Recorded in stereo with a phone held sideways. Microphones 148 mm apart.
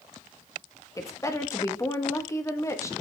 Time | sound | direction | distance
1.0 | a woman speaking | 20° left (ahead or behind) | 1.2 m